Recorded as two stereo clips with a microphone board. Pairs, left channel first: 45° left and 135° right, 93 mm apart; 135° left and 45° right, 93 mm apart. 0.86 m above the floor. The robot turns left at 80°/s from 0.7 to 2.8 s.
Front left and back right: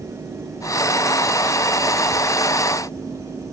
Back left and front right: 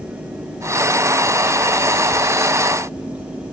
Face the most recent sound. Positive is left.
No sound to turn to.